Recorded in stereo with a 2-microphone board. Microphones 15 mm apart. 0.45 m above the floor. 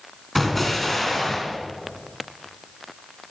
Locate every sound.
0.3 s an explosion: 10° left (ahead or behind), 3 m